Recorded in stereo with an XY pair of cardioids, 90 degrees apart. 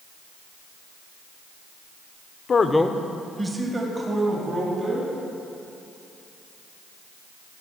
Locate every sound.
2.5 s a man speaking: 50° left, 0.9 m; by 5.1 s 45° right, 4 m